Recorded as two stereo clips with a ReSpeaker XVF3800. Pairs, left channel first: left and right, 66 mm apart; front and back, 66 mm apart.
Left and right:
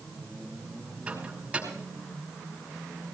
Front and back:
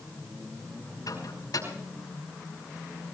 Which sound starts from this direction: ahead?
A microwave, at 1.1 s.